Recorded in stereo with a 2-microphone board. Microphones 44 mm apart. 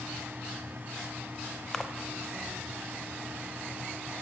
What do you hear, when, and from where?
1.7 s a splash: 5° left (ahead or behind), 0.8 m